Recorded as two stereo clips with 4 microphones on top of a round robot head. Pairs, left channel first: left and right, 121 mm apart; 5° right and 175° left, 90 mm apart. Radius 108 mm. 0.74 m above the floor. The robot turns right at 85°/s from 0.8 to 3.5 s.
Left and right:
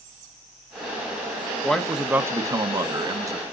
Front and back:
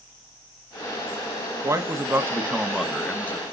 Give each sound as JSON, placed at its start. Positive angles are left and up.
{"t": 1.6, "sound": "a man speaking", "azimuth_deg": 165, "distance_m": 1.1}